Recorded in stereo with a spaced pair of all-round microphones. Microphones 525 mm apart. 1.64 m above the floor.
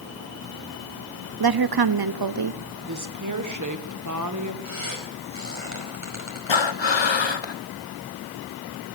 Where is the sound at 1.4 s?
45° right (ahead or behind), 0.6 m.